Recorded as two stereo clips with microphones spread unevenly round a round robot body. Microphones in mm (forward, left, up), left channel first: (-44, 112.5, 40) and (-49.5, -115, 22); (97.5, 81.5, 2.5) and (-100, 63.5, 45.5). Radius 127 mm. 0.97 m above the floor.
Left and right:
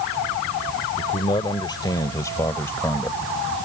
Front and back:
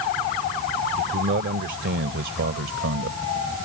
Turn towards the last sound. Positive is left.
turn(degrees=170)